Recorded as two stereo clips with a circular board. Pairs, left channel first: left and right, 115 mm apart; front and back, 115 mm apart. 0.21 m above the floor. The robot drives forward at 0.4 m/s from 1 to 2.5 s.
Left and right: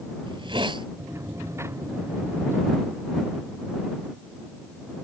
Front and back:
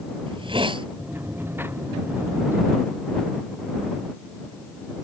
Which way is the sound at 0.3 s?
135° right.